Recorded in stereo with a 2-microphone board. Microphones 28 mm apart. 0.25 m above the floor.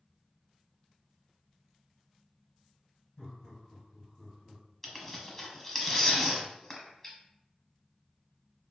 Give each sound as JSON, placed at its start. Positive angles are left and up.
{"t": 3.2, "sound": "laughter", "side_deg": 35, "distance_m": 1.2}
{"t": 4.8, "sound": "tearing paper", "side_deg": 5, "distance_m": 1.0}